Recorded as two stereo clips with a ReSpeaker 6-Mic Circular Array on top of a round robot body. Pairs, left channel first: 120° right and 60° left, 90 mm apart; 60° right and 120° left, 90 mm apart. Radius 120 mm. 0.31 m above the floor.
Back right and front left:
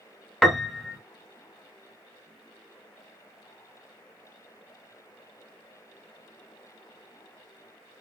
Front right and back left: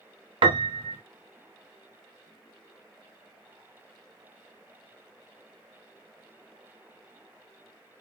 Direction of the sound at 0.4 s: 150° left.